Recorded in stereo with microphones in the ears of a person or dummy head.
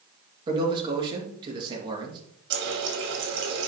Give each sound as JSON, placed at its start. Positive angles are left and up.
{"t": 0.5, "sound": "a man speaking", "side_deg": -20, "distance_m": 2.5}
{"t": 2.5, "sound": "a running tap", "side_deg": -60, "distance_m": 2.0}